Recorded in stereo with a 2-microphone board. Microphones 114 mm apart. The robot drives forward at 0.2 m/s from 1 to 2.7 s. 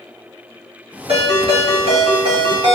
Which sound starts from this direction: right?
A ringtone, at 1.1 s.